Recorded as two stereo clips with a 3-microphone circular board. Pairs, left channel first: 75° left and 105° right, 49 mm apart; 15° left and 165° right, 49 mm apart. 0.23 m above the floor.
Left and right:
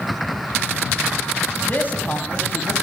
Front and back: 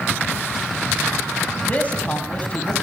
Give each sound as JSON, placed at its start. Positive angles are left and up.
{"t": 1.6, "sound": "a man speaking", "azimuth_deg": 60, "distance_m": 1.4}